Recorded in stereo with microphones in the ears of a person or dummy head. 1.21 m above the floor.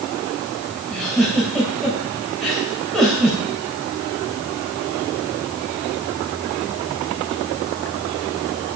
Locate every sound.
0.9 s a giggle: centre (ahead or behind), 3.5 m